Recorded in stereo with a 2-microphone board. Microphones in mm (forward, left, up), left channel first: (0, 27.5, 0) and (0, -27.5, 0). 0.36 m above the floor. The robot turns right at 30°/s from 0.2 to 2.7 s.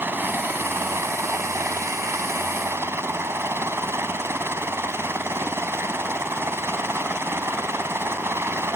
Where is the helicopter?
135° right; by 8.8 s 60° right.